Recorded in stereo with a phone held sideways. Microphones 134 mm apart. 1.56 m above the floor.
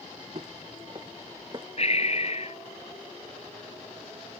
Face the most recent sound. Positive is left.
turn(degrees=50)  # may be behind; listen again after turning